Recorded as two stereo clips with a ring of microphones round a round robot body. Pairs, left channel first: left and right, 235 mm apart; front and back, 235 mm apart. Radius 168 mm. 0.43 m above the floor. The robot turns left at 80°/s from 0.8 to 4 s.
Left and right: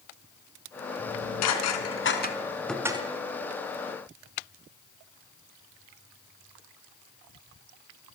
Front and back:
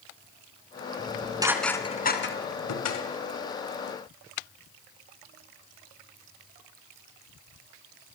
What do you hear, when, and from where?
1.0 s dishes clattering: 140° left, 3 m; by 3.1 s 25° right, 3 m